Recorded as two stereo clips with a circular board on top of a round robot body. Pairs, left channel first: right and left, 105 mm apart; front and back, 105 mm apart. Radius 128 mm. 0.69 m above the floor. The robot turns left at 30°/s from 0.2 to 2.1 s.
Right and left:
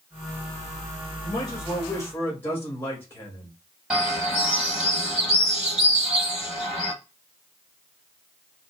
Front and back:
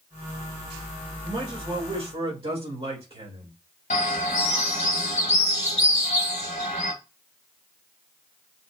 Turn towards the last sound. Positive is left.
turn(degrees=5)